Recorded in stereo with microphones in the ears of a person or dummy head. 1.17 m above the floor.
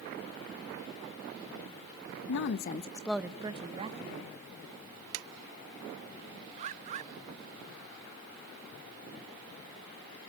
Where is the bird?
40° right (ahead or behind), 0.7 m.